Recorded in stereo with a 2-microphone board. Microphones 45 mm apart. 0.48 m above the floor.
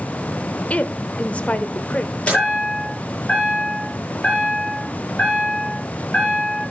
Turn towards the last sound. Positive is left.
turn(degrees=25)  # may be behind; listen again after turning